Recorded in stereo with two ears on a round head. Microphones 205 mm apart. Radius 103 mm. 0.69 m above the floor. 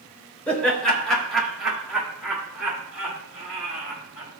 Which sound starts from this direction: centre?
Laughter, at 0.5 s.